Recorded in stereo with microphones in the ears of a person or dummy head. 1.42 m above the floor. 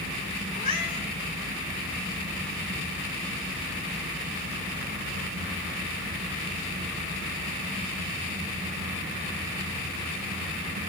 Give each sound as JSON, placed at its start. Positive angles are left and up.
{"t": 0.5, "sound": "a cat meowing", "side_deg": 35, "distance_m": 4.5}